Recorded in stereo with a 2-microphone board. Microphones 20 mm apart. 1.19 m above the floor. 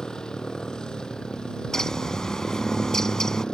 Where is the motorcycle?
50° left (ahead or behind); by 3.5 s 55° left (ahead or behind).